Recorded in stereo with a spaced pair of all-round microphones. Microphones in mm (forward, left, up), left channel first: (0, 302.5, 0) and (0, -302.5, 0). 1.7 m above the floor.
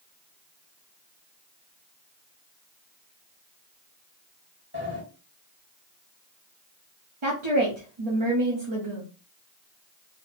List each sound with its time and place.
4.7 s a sliding door: 20° right (ahead or behind), 1.7 m
7.2 s a woman speaking: 55° right (ahead or behind), 1.0 m